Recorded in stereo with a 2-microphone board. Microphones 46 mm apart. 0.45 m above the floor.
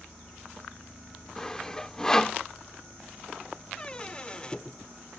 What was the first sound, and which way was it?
Sawing, 15° left (ahead or behind).